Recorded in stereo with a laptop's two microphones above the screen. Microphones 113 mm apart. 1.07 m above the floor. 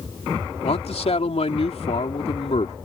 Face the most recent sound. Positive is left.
turn(degrees=65)  # may be behind; listen again after turning